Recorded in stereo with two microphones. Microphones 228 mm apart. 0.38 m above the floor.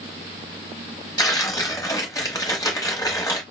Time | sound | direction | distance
1.2 | tearing paper | 15° left (ahead or behind) | 1.2 m